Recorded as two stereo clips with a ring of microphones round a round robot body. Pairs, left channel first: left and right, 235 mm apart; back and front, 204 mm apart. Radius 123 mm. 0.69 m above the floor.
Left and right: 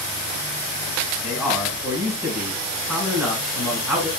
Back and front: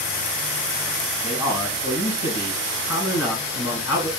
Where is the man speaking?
175° right, 2.5 m.